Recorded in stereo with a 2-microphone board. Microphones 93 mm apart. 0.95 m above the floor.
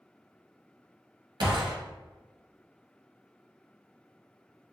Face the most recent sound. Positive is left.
turn(degrees=-55)  # may be behind; listen again after turning